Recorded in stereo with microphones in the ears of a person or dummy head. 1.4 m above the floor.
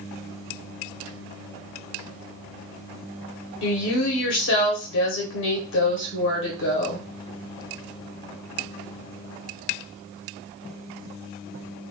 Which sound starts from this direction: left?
A woman speaking, at 3.6 s.